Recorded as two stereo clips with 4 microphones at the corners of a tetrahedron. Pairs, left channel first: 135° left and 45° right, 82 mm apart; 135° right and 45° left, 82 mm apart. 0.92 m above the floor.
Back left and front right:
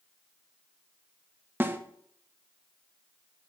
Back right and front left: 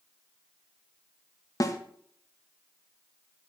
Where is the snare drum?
100° right, 1.2 m.